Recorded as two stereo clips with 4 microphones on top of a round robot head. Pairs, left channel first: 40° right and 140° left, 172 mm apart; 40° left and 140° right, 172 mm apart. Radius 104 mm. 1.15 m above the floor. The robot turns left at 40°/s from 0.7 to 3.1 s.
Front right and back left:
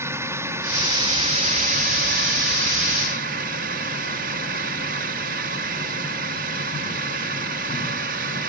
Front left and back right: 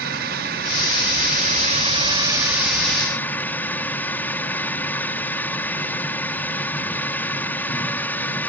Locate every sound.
0.0 s a drone: 145° right; by 8.5 s 120° left